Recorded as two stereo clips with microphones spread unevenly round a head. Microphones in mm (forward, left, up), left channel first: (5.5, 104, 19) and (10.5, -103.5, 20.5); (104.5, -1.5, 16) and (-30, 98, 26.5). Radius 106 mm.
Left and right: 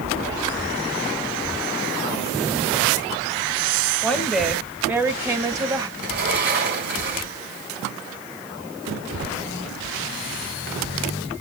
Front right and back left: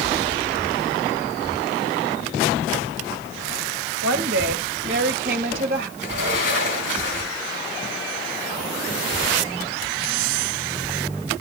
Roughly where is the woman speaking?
Behind.